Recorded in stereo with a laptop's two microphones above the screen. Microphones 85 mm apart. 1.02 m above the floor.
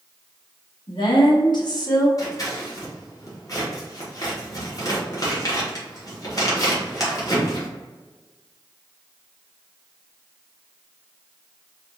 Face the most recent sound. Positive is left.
turn(degrees=40)  # may be behind; listen again after turning